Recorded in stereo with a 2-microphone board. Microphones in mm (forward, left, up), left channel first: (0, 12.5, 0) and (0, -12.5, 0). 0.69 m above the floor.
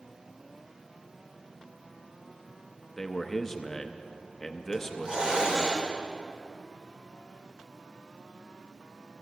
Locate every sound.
3.0 s a man speaking: 10° left (ahead or behind), 0.7 m
4.7 s a hiss: 35° right (ahead or behind), 2.0 m